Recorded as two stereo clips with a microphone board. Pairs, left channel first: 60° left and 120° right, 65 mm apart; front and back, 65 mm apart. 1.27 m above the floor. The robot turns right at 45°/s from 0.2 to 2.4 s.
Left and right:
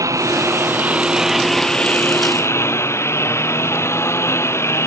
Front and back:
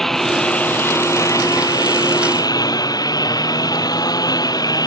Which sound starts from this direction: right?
A lawn mower, at 0.0 s.